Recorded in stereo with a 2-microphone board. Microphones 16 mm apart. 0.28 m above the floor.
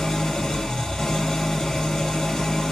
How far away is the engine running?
About 3 m.